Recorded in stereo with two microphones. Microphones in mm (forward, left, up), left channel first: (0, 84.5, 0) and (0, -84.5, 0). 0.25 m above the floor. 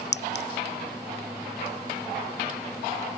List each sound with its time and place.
0.1 s a clink: 80° left